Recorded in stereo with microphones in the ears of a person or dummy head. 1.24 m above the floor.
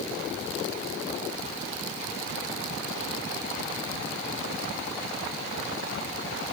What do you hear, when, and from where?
Only background noise.